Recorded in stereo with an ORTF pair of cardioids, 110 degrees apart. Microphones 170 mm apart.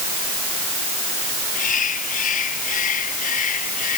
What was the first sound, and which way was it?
A bird, 50° left.